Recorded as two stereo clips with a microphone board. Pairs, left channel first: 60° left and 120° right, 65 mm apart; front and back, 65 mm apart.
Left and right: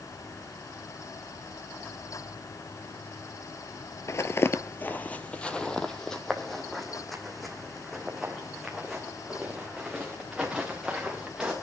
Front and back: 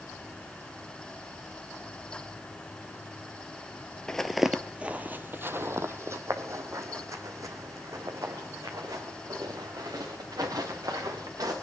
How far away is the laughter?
No laughter in this recording.